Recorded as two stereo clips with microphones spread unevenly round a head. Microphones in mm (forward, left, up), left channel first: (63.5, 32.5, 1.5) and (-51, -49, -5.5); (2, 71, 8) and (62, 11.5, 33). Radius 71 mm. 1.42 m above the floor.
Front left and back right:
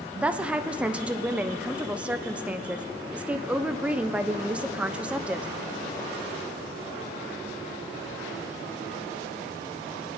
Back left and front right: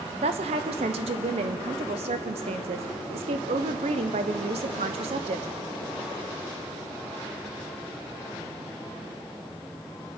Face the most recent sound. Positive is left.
turn(degrees=-65)